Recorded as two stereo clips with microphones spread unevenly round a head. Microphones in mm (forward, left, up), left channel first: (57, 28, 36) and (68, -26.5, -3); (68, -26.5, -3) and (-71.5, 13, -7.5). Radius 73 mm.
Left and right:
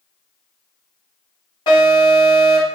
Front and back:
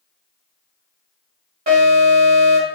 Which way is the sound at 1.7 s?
130° left.